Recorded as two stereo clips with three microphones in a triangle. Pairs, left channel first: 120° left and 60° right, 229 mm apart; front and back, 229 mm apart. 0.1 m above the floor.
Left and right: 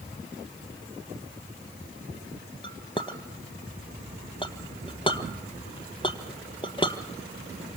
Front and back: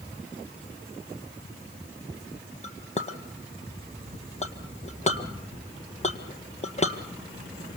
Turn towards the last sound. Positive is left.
turn(degrees=55)